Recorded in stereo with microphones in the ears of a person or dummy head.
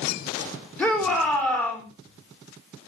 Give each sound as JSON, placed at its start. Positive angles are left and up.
{"t": 0.8, "sound": "a shout", "side_deg": 5, "distance_m": 3.0}